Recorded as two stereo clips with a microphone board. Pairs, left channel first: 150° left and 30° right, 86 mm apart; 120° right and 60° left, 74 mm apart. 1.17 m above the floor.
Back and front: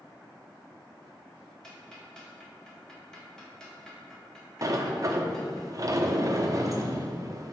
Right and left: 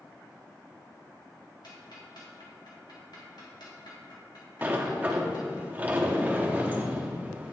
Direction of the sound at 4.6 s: Straight ahead.